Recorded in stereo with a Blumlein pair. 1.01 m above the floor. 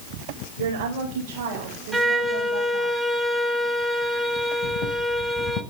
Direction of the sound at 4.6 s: 35° left.